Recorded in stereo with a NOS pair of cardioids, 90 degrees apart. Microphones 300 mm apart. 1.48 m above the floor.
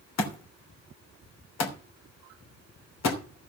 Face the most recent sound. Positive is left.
turn(degrees=65)